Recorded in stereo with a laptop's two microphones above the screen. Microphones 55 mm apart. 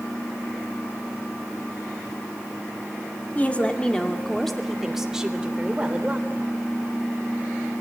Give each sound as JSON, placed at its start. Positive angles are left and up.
{"t": 3.4, "sound": "a woman speaking", "side_deg": 25, "distance_m": 2.0}